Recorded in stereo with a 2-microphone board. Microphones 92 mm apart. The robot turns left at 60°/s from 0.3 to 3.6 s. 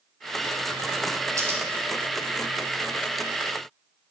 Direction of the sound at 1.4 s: 35° right (ahead or behind).